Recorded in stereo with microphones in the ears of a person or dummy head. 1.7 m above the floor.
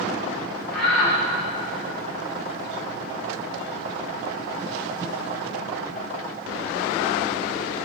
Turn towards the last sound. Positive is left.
turn(degrees=5)  # may be behind; listen again after turning